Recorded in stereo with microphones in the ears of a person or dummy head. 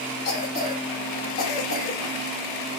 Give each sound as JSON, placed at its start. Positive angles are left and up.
{"t": 0.2, "sound": "a cough", "side_deg": 45, "distance_m": 2.5}